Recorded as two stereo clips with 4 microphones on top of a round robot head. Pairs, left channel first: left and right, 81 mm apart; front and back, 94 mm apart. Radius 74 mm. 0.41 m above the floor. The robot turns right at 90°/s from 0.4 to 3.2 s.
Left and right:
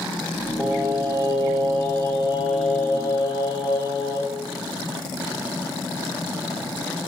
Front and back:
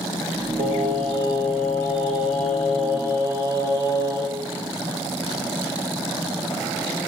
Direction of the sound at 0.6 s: 175° right.